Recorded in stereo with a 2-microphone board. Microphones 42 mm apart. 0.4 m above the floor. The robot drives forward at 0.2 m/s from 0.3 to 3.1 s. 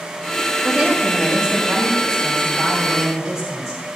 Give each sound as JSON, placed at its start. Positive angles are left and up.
{"t": 0.6, "sound": "a woman speaking", "side_deg": -5, "distance_m": 2.0}